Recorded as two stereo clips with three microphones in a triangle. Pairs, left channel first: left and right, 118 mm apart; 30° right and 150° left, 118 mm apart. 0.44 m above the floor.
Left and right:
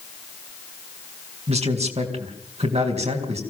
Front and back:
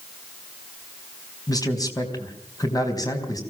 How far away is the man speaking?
About 4 m.